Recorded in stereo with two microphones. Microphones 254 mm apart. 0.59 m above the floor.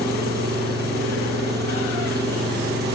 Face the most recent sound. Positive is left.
turn(degrees=-40)  # may be behind; listen again after turning